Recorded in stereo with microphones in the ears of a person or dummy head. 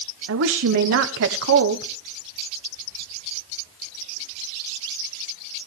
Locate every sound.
0.3 s a woman speaking: 60° right (ahead or behind), 1.1 m